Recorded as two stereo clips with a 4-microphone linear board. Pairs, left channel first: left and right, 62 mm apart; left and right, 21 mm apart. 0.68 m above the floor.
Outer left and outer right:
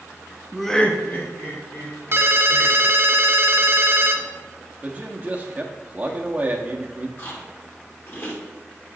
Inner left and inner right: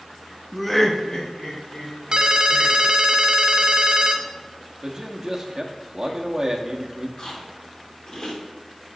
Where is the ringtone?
45° right (ahead or behind), 0.6 m.